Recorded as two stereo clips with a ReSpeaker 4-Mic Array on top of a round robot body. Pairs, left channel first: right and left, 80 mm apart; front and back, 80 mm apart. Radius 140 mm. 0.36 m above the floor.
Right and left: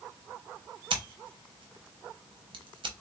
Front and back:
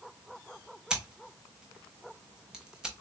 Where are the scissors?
100° left, 0.7 m.